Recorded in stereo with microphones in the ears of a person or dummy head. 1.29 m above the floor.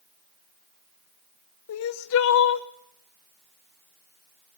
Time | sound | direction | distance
1.7 | crying | 65° left (ahead or behind) | 0.6 m